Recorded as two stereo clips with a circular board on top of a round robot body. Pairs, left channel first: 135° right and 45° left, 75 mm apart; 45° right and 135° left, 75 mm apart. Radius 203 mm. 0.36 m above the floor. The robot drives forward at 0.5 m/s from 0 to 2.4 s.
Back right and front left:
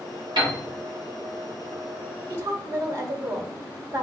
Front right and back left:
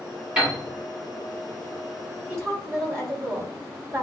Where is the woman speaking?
85° left, 2.0 m; by 4.0 s 90° left, 1.9 m.